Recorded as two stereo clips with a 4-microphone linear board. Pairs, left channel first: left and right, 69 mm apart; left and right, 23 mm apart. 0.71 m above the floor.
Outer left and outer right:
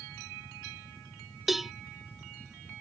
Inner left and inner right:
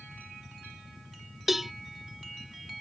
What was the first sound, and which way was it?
A cowbell, 5° right (ahead or behind).